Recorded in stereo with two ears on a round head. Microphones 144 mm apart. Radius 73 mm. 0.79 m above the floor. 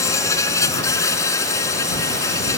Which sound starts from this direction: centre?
An insect, at 0.0 s.